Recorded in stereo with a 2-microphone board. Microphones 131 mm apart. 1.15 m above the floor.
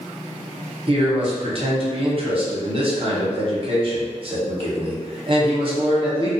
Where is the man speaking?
45° right (ahead or behind), 0.8 m.